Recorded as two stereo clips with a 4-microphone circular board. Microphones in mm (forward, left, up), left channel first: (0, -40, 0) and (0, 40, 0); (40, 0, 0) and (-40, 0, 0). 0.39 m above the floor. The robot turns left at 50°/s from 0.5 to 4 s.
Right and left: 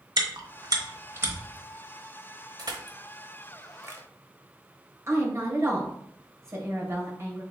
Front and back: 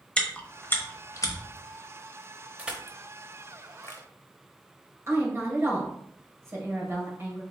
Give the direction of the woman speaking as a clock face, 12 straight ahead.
8 o'clock.